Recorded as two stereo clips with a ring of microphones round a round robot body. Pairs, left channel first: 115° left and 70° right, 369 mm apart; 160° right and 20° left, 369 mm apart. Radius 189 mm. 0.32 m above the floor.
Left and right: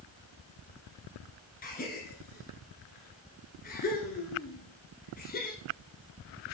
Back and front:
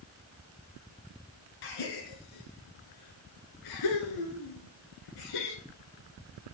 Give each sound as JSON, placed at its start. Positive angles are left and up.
{"t": 1.6, "sound": "a gasp", "azimuth_deg": 180, "distance_m": 1.2}